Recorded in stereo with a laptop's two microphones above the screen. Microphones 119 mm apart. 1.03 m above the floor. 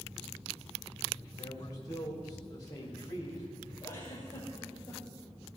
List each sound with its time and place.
1.4 s a man speaking: 30° left (ahead or behind), 3.5 m
3.8 s a giggle: 25° left (ahead or behind), 6.5 m